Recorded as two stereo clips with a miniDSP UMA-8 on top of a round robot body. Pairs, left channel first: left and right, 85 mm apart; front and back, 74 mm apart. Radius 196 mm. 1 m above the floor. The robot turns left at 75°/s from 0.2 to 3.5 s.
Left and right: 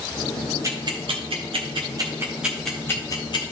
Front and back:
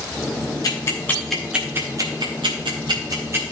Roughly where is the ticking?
Ahead right.